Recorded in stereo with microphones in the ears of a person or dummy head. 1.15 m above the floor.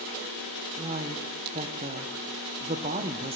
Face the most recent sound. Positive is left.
turn(degrees=-35)  # may be behind; listen again after turning